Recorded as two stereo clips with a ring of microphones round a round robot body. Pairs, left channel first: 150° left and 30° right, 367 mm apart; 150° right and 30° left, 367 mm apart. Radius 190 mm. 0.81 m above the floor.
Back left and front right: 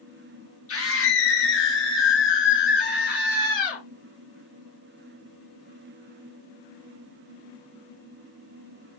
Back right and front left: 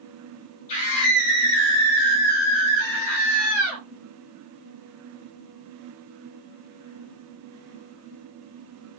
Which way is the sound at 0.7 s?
155° right.